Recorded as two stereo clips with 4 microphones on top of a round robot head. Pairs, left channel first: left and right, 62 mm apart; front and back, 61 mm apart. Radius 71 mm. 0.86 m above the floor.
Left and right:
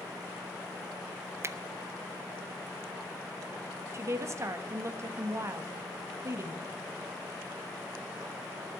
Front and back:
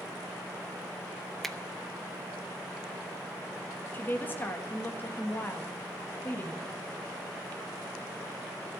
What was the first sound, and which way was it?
A finger snap, 85° right.